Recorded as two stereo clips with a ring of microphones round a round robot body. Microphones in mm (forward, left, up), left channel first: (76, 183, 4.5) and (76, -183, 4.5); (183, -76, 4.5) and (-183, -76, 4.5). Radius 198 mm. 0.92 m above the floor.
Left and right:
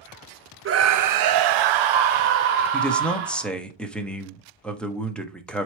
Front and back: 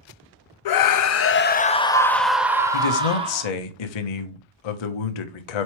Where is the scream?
30° right, 0.8 m; by 3.5 s 105° right, 1.7 m.